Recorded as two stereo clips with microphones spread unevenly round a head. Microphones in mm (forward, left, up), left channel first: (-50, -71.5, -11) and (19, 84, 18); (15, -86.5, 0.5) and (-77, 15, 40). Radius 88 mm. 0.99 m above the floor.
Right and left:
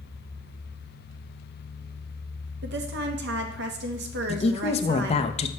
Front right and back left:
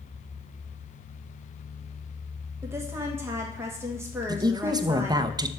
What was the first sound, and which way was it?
A woman speaking, 50° left.